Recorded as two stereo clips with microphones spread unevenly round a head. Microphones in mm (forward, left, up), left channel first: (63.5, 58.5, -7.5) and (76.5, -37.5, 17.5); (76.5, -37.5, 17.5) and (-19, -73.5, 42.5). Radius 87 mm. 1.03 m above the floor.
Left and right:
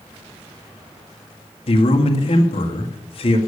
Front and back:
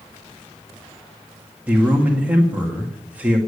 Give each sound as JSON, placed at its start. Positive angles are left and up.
{"t": 1.7, "sound": "a man speaking", "azimuth_deg": 115, "distance_m": 1.8}